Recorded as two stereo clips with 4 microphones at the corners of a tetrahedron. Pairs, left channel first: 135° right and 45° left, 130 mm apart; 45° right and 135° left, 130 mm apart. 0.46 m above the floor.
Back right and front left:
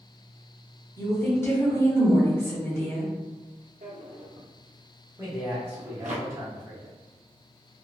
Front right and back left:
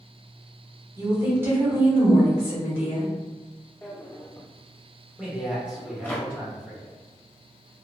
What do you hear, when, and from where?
1.0 s a woman speaking: straight behind, 1.1 m
3.8 s a drawer: 30° left, 0.6 m
5.2 s a man speaking: 65° left, 0.9 m